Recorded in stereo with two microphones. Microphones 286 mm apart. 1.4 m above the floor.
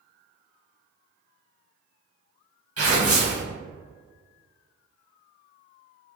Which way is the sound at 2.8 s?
55° right (ahead or behind).